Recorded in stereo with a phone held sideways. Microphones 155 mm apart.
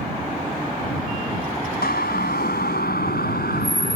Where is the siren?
80° left; by 4.0 s 85° left.